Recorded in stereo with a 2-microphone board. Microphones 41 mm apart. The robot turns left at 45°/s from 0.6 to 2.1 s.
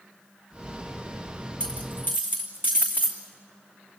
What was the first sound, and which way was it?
A dropped coin, 30° left (ahead or behind).